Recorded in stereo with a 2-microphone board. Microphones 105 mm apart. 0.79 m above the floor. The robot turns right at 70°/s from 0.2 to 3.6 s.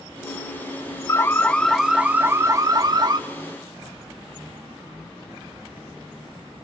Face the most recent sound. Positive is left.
turn(degrees=-50)